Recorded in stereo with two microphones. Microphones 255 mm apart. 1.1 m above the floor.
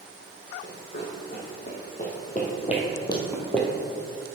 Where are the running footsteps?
45° left (ahead or behind), 2.5 m; by 3.7 s centre (ahead or behind), 1.3 m.